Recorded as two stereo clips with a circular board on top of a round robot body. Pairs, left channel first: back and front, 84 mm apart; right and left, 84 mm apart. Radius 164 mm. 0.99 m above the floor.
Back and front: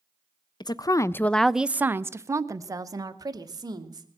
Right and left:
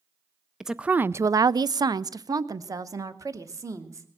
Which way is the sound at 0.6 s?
175° left.